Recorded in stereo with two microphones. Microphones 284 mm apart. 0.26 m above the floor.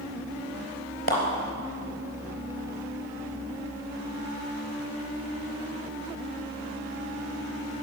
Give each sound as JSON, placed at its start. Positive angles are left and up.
{"t": 1.1, "sound": "a clap", "side_deg": 50, "distance_m": 3.5}